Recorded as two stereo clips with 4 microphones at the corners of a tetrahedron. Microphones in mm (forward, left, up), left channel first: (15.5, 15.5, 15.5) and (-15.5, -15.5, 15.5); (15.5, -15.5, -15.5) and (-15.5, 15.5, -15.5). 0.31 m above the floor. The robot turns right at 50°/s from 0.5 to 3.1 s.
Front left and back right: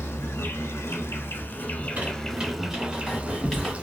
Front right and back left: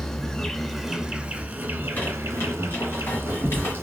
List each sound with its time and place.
0.0 s an insect: 35° left, 0.7 m; by 3.8 s 165° left, 0.7 m
1.8 s a squeak: 100° right, 1.8 m; by 3.7 s 30° right, 1.8 m